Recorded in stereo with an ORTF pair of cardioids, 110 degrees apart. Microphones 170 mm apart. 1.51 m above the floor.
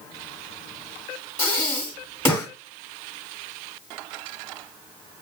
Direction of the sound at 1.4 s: 15° left.